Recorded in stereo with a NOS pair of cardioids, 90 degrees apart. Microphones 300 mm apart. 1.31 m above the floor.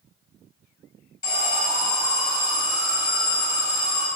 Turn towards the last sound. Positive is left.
turn(degrees=10)